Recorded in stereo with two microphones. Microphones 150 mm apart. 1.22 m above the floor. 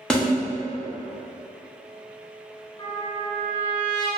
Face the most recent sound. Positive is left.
turn(degrees=30)  # may be behind; listen again after turning